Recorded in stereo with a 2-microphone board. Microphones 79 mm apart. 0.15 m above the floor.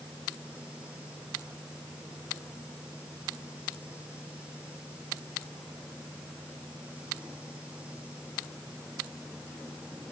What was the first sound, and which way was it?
Only background noise.